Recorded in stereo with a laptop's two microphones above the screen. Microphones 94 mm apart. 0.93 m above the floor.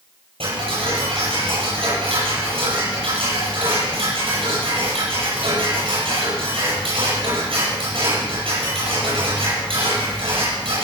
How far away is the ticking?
About 8.5 m.